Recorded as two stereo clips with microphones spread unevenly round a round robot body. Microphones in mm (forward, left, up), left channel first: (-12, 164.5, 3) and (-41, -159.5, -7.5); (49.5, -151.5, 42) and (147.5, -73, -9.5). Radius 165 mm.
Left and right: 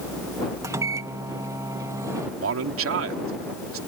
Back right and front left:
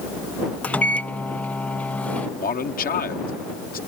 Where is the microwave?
25° right.